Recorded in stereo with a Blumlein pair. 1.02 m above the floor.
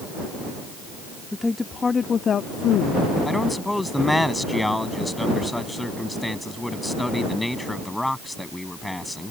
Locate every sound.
1.3 s a woman speaking: 5° left; by 3.1 s 45° left
3.2 s a man speaking: 5° left